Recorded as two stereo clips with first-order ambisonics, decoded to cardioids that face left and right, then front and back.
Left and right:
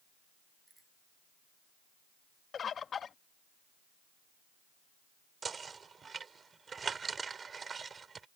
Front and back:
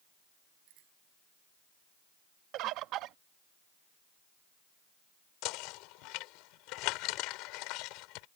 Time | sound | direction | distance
0.7 | a bicycle bell | 175° right | ?
2.5 | a bird | 150° left | ?
5.4 | knocking | 20° right | ?